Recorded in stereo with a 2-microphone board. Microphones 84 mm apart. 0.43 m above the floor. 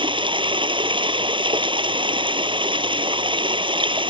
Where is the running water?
80° right.